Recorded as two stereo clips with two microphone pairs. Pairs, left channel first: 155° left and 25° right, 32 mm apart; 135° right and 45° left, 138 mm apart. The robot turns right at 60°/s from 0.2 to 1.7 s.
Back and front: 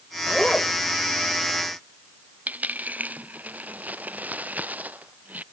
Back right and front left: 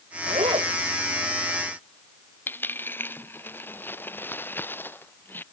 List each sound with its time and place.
0.3 s a zipper: 75° left; by 0.7 s 100° left
2.5 s a dropped coin: 60° right